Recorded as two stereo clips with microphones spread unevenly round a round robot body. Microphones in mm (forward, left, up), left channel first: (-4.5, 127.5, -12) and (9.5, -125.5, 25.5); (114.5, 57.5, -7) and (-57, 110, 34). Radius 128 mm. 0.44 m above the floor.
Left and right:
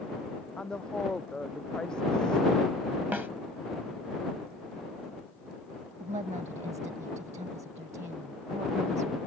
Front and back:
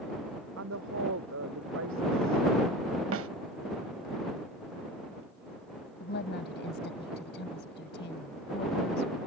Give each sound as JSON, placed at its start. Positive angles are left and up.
{"t": 0.6, "sound": "a woman speaking", "azimuth_deg": 180}
{"t": 3.1, "sound": "a snare drum", "azimuth_deg": -170}
{"t": 6.0, "sound": "a woman speaking", "azimuth_deg": -20}